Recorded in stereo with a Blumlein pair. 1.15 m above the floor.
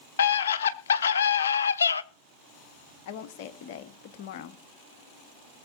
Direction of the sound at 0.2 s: 65° left.